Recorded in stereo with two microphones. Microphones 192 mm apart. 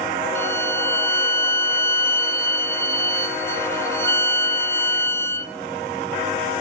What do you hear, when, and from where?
0.3 s a violin: 15° left (ahead or behind), 1.0 m